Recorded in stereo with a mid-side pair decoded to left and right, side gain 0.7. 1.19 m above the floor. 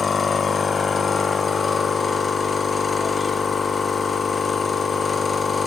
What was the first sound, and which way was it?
A machine running, 20° left.